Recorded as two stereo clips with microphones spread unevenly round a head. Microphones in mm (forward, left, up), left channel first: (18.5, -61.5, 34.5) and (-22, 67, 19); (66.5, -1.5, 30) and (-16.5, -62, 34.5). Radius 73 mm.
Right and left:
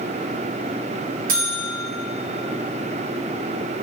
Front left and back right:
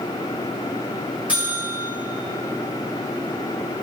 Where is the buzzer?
135° left, 1.8 m.